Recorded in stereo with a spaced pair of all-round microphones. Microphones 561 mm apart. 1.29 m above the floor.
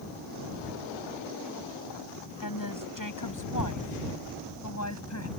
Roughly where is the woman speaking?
Left.